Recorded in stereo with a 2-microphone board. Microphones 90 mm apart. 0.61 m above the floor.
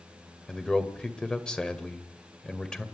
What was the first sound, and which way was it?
A man speaking, 10° left (ahead or behind).